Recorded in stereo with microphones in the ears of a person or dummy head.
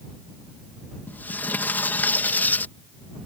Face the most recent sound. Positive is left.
turn(degrees=10)  # may be behind; listen again after turning